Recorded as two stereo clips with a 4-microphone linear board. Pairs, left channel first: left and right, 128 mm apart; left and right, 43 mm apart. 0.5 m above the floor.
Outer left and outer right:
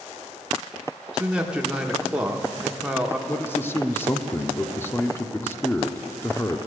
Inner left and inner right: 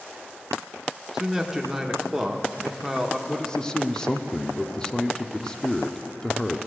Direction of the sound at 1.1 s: 10° right (ahead or behind).